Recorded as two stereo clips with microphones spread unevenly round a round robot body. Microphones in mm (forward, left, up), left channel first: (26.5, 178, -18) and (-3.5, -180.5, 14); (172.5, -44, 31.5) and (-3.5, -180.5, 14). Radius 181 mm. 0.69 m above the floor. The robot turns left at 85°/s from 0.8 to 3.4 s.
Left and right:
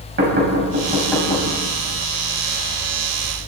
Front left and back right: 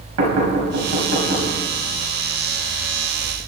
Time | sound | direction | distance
0.2 | knocking | 155° right | 4.5 m